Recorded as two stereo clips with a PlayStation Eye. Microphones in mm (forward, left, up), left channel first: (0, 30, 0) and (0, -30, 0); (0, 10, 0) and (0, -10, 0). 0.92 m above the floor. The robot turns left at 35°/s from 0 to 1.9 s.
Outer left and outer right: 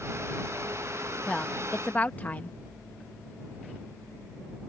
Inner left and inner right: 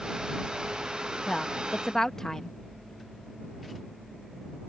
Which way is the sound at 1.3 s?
10° left (ahead or behind).